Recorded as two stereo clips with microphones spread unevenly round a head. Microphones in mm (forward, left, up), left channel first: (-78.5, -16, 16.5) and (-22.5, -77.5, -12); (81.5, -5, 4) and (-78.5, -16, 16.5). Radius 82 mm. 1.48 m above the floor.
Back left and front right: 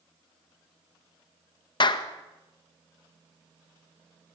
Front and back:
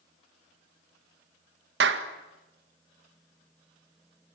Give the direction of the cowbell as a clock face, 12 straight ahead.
I don't hear a cowbell.